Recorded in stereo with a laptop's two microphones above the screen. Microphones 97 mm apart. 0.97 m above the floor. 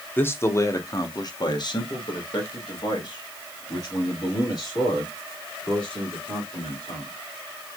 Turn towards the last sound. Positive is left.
turn(degrees=40)  # may be behind; listen again after turning